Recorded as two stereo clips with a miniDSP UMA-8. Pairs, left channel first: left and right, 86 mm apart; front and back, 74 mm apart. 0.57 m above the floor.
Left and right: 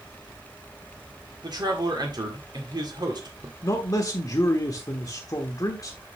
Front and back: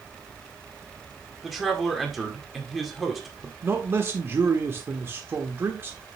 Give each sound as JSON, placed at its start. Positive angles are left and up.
{"t": 1.4, "sound": "a man speaking", "azimuth_deg": -95, "distance_m": 1.8}
{"t": 3.6, "sound": "a man speaking", "azimuth_deg": 130, "distance_m": 1.2}